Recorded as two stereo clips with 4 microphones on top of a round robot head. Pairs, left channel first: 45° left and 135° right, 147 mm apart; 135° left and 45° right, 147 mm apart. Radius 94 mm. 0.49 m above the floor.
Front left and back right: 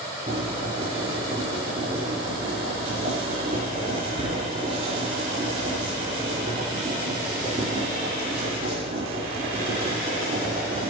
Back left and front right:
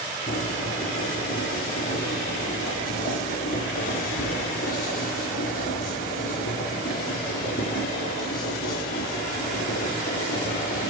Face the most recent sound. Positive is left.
turn(degrees=170)